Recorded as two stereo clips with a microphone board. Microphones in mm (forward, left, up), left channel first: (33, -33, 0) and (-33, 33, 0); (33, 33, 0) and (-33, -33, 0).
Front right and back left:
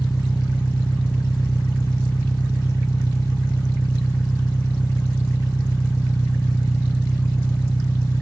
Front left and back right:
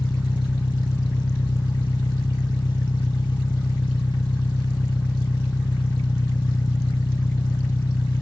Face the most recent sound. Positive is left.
turn(degrees=15)